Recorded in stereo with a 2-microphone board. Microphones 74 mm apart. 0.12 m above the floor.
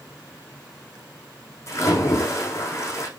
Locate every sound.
1.7 s a splash: 40° left (ahead or behind), 6.5 m